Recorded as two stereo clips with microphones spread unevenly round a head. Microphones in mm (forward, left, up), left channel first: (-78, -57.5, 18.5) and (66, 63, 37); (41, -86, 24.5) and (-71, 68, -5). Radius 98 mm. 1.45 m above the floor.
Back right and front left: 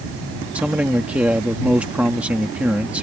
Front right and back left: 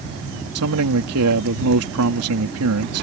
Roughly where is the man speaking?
Behind left.